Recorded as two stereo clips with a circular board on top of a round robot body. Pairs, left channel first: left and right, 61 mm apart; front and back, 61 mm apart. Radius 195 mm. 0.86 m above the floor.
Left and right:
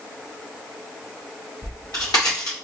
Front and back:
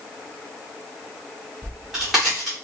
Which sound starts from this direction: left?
A crack, at 1.6 s.